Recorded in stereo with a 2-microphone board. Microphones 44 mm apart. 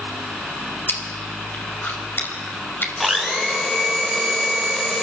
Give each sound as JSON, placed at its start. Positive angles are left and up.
{"t": 0.9, "sound": "chewing", "side_deg": 50, "distance_m": 5.0}
{"t": 3.0, "sound": "a blender", "side_deg": 5, "distance_m": 5.0}